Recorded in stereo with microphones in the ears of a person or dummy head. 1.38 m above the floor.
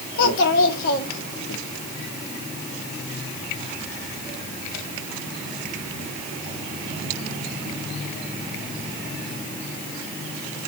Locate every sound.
0.2 s a child speaking: 65° left (ahead or behind), 1.6 m